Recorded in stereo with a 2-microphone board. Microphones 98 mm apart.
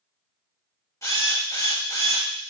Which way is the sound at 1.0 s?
35° left (ahead or behind).